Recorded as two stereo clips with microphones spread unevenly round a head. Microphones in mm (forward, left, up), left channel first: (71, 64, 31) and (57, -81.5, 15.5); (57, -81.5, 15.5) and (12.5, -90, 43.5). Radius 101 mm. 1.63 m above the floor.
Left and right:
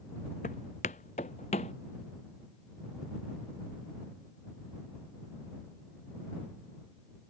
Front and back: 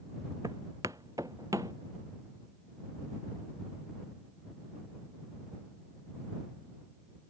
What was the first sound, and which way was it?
Footsteps, 140° left.